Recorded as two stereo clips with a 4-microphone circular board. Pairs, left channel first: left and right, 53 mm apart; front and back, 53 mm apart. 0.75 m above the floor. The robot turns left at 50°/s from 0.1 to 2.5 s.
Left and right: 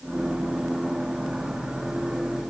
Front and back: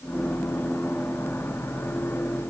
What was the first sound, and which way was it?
Only background noise.